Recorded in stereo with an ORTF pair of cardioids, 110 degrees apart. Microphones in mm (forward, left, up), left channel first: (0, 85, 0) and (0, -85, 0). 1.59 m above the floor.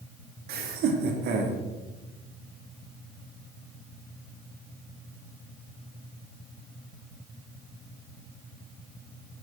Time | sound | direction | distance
0.5 | laughter | 65° right | 2.5 m